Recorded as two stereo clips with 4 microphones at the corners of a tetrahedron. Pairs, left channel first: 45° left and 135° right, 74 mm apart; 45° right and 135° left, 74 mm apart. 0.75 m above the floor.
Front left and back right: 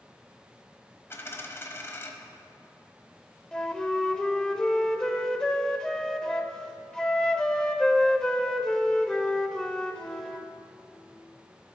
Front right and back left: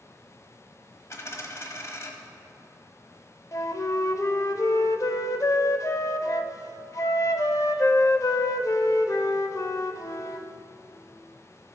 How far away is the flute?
About 0.6 m.